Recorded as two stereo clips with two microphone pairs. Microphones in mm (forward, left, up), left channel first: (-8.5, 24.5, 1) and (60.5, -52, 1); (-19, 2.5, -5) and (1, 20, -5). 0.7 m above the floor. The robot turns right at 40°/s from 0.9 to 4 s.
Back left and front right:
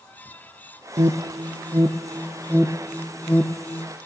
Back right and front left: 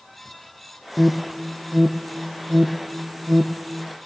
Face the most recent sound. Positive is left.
turn(degrees=80)